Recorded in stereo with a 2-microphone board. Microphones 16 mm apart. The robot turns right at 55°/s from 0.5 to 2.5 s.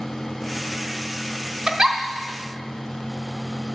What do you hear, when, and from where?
1.7 s a giggle: 45° right (ahead or behind), 0.9 m; by 2.0 s 35° right (ahead or behind), 0.9 m